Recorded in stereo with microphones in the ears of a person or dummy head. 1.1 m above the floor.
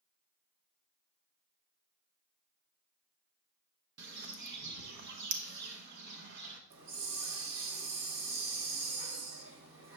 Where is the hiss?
65° right (ahead or behind), 1.6 m.